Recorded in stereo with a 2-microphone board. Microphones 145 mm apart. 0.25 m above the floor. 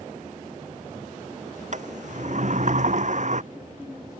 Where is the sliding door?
55° right (ahead or behind).